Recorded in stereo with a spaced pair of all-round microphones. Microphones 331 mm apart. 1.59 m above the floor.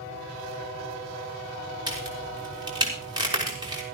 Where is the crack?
15° right (ahead or behind), 5.5 m.